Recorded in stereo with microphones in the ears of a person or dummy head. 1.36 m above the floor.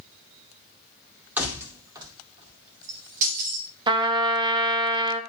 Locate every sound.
1.4 s keys jangling: 10° right (ahead or behind), 2 m; by 3.7 s 60° right (ahead or behind), 3 m
3.9 s a trumpet: 25° right (ahead or behind), 1.2 m